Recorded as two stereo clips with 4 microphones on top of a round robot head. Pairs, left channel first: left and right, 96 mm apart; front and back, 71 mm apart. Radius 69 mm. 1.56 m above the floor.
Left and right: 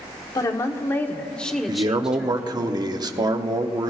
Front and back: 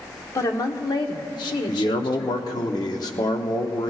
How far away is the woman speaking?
About 1.1 m.